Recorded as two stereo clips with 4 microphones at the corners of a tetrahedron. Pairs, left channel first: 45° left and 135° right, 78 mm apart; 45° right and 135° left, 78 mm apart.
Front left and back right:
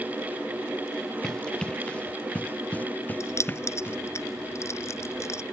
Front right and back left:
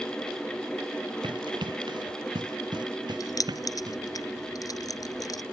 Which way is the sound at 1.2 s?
125° left.